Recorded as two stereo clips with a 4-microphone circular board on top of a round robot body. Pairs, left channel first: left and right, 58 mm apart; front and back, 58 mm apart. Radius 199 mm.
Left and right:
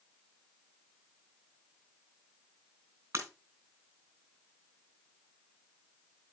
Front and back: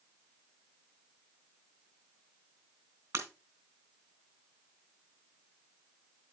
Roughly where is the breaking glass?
Behind right.